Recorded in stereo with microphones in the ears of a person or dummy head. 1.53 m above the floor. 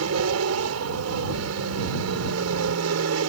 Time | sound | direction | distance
0.0 | an aircraft | 75° right (ahead or behind) | ?